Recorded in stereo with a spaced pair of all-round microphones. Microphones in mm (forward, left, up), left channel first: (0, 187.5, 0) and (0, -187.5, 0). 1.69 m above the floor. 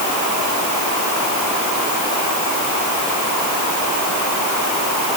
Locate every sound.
Only background noise.